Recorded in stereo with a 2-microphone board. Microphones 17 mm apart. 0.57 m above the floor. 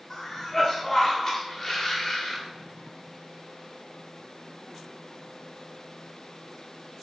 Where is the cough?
20° left (ahead or behind), 0.7 m.